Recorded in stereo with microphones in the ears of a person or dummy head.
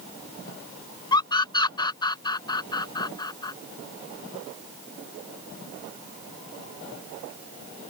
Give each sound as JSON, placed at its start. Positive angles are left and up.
{"t": 1.1, "sound": "a scream", "side_deg": 25}